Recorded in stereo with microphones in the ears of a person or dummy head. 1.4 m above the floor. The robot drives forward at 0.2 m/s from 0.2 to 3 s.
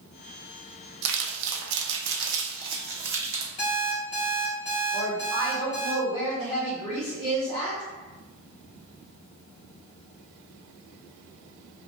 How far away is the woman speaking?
About 0.7 m.